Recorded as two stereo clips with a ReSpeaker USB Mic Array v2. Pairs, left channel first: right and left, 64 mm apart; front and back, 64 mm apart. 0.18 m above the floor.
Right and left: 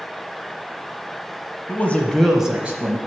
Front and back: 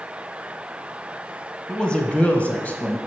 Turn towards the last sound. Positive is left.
turn(degrees=55)